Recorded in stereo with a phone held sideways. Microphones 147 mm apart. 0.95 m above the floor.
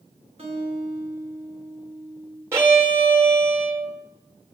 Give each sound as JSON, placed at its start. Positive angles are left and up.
{"t": 0.4, "sound": "a guitar", "side_deg": -45, "distance_m": 2.5}
{"t": 2.5, "sound": "a violin", "side_deg": -15, "distance_m": 1.2}